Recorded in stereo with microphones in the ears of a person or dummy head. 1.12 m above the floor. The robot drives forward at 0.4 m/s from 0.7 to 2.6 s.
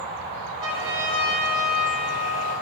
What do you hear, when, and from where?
0.6 s a trumpet: 40° right (ahead or behind), 1.2 m; by 2.5 s 55° right (ahead or behind), 1.0 m